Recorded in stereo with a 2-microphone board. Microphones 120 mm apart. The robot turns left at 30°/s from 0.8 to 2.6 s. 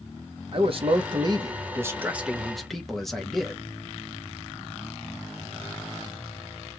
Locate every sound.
0.5 s a man speaking: 130° right, 0.8 m; by 3.6 s 175° left, 0.8 m